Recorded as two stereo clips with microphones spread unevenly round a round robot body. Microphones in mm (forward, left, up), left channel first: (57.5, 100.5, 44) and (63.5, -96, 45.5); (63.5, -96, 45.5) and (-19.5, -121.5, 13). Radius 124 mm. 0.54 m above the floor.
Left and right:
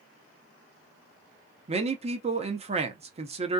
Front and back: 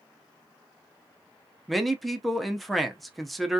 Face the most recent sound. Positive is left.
turn(degrees=-110)